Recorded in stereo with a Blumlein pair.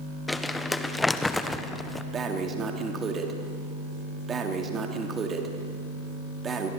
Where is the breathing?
20° right, 3 m.